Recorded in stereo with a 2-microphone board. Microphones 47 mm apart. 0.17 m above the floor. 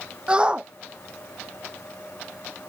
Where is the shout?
20° right (ahead or behind).